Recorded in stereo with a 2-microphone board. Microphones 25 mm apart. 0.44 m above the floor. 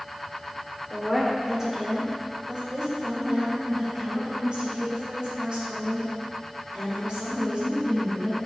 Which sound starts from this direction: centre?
A woman speaking, at 0.9 s.